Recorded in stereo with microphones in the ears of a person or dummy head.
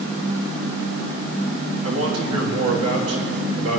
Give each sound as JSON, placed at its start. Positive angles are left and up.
{"t": 1.8, "sound": "a man speaking", "side_deg": -75, "distance_m": 3.0}